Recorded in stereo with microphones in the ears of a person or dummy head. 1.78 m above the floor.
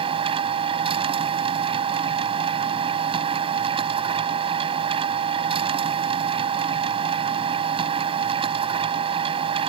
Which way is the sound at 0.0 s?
30° right (ahead or behind).